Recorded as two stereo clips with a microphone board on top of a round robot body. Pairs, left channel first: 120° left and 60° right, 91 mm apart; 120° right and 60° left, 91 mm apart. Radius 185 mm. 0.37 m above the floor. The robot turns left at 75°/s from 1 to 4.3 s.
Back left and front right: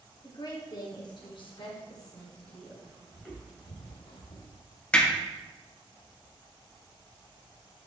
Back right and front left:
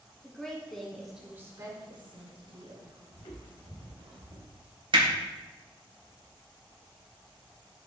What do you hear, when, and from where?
0.2 s a woman speaking: 155° left, 1.9 m; by 3.0 s 5° left, 1.9 m
3.1 s footsteps: 150° right, 2.5 m; by 4.6 s 90° left, 1.5 m
4.9 s hammering: 45° left, 2.5 m